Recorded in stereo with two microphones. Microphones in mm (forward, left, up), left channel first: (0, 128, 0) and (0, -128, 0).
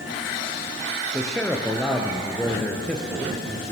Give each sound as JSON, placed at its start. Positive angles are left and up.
{"t": 1.1, "sound": "a man speaking", "side_deg": 5, "distance_m": 3.0}